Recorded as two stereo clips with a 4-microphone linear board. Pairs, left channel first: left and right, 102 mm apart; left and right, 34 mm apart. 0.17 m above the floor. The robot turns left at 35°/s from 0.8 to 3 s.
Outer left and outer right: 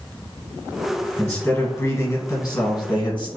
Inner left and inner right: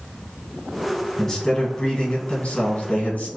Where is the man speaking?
155° left, 1.8 m; by 3.3 s 90° left, 1.8 m.